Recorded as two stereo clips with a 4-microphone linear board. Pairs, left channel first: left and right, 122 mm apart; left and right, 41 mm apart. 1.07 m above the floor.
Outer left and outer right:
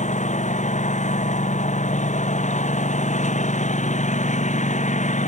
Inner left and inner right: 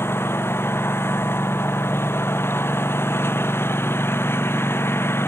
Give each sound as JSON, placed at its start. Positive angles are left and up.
{"t": 0.0, "sound": "a lawn mower", "side_deg": 80}